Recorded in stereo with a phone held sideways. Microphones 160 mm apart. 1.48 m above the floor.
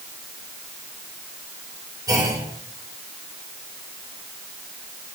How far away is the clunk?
About 4 m.